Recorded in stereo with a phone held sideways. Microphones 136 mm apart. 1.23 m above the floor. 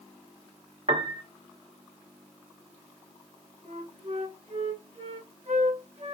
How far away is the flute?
About 1.4 m.